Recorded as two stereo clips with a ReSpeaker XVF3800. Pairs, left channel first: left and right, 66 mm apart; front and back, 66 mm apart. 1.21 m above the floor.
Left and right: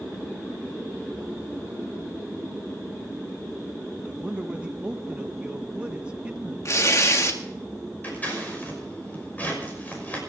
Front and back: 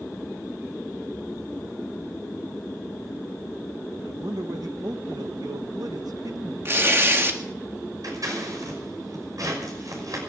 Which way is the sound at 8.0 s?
155° left.